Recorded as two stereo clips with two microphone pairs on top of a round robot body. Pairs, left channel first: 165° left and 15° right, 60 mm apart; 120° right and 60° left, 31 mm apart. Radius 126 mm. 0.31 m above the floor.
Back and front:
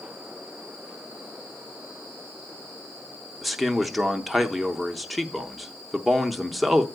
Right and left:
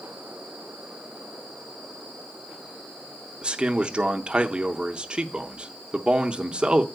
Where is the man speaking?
50° left, 0.9 m.